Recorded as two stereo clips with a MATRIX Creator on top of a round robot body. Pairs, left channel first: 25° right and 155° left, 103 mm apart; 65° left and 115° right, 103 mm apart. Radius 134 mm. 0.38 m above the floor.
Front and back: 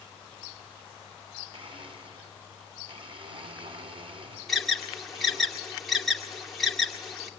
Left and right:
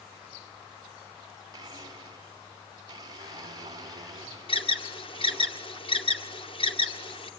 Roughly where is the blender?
Behind.